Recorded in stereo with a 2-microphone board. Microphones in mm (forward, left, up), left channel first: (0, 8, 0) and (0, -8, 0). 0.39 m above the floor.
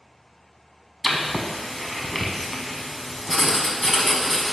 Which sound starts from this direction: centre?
Writing, at 1.0 s.